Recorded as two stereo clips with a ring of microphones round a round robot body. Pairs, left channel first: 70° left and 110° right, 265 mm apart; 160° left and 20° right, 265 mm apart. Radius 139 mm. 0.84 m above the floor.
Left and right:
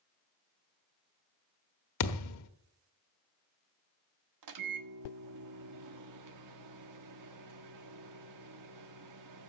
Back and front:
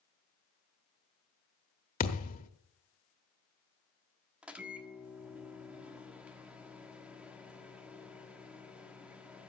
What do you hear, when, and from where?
2.0 s a thud: 95° left, 1.2 m
4.4 s a microwave: 110° right, 1.4 m